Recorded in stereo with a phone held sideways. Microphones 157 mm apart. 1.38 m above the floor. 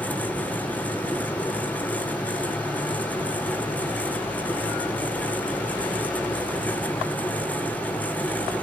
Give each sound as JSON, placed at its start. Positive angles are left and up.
{"t": 0.0, "sound": "a fan", "side_deg": 10, "distance_m": 0.8}